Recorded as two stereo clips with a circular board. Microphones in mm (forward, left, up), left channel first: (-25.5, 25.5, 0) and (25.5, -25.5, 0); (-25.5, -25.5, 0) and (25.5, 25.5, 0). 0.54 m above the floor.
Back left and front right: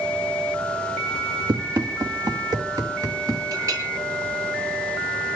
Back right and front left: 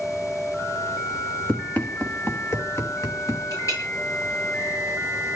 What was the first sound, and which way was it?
Running footsteps, 60° right.